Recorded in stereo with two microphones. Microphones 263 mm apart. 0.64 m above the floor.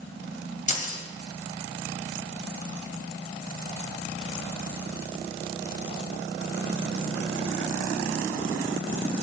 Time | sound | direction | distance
0.7 | keys jangling | 30° left (ahead or behind) | 2 m